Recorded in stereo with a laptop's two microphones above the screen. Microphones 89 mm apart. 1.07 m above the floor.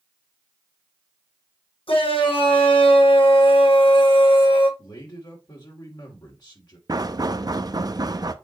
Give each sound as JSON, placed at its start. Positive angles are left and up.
{"t": 1.9, "sound": "a shout", "side_deg": 75, "distance_m": 5.5}
{"t": 4.8, "sound": "a man speaking", "side_deg": 50, "distance_m": 3.5}
{"t": 6.9, "sound": "knocking", "side_deg": -45, "distance_m": 0.5}